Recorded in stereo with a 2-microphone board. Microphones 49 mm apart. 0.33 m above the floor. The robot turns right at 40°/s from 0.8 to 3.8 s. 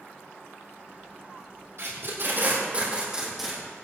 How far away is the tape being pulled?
About 5.5 m.